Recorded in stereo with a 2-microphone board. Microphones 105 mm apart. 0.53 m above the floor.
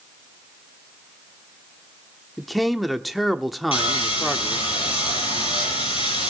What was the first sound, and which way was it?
A man speaking, centre (ahead or behind).